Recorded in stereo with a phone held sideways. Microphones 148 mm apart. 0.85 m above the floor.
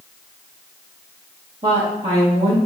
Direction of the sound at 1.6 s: 45° right (ahead or behind).